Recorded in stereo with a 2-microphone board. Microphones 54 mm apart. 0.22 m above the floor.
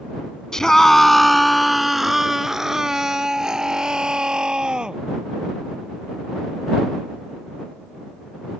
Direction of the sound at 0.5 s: 10° left (ahead or behind).